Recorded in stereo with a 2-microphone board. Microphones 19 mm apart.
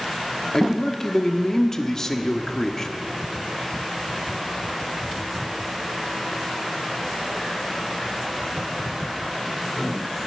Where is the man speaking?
30° left (ahead or behind), 1.2 m.